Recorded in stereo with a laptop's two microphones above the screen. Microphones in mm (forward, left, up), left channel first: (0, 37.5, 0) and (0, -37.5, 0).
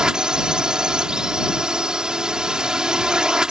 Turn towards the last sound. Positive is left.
turn(degrees=-10)  # may be behind; listen again after turning